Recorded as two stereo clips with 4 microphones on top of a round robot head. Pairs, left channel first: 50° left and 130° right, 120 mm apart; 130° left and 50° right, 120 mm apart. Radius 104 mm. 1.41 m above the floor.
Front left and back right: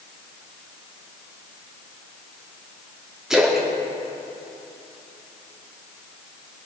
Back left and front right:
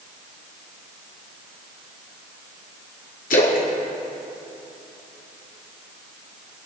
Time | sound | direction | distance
3.3 | a splash | 145° left | 1.6 m